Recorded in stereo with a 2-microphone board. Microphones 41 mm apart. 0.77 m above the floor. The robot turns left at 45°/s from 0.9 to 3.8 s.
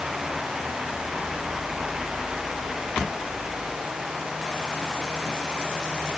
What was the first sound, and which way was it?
Only background noise.